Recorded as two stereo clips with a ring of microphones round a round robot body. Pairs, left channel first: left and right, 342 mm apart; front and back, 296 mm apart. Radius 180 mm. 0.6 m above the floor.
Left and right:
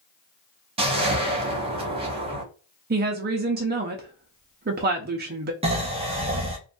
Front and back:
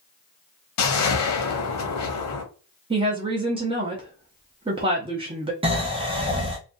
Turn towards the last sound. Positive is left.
turn(degrees=-135)